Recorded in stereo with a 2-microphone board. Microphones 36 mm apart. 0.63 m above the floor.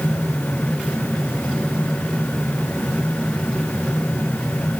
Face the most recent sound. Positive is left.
No sound to turn to.